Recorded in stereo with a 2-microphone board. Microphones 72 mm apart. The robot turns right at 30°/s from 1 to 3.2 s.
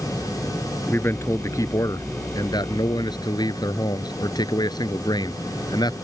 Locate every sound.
0.9 s a man speaking: 35° left; by 5.9 s 100° left